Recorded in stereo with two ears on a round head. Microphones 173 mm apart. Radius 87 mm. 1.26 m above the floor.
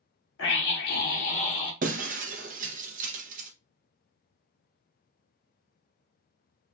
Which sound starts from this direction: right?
Breaking glass, at 1.8 s.